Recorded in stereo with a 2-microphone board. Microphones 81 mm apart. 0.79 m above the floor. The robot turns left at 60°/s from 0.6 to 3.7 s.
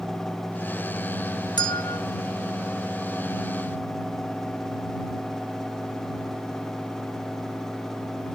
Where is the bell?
75° left (ahead or behind); by 2.0 s 70° left (ahead or behind).